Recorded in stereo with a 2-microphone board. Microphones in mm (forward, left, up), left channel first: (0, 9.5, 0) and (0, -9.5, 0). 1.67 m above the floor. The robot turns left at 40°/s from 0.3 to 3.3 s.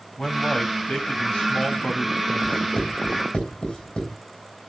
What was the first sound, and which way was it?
A man speaking, 135° left.